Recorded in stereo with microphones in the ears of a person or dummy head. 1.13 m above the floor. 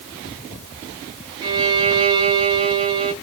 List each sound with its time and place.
1.4 s a violin: 25° right (ahead or behind), 1.0 m